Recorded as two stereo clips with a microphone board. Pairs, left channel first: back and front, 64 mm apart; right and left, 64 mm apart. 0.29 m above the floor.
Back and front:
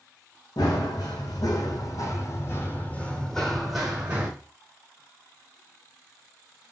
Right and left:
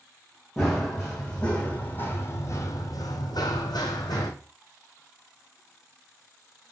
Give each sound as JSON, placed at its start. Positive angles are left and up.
{"t": 0.6, "sound": "running footsteps", "azimuth_deg": -175, "distance_m": 1.4}